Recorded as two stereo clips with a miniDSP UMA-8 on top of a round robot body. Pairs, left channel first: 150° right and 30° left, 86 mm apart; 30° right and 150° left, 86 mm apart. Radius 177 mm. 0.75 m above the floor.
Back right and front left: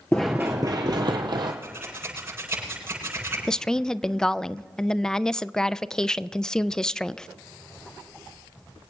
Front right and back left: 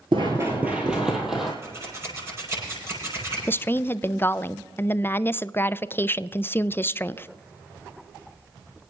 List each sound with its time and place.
0.1 s running footsteps: 150° left, 0.7 m; by 1.5 s 60° left, 1.7 m
1.6 s scissors: 90° left, 8.5 m
3.5 s a woman speaking: 75° right, 0.6 m